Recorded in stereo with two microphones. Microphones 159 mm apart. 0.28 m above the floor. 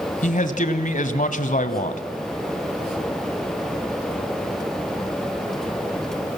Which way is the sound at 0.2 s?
55° left (ahead or behind).